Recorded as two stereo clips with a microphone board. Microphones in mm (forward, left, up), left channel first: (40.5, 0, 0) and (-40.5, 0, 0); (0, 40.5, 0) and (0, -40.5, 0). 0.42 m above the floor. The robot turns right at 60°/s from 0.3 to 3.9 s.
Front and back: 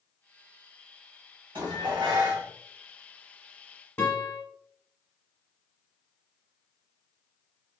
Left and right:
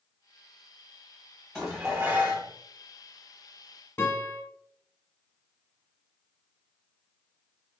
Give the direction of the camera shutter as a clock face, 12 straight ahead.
No camera shutter in this recording.